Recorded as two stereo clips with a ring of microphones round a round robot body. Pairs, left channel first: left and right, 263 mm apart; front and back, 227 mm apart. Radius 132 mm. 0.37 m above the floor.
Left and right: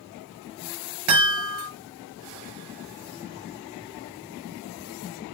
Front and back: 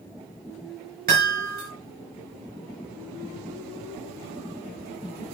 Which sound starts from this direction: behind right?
A chime, at 1.1 s.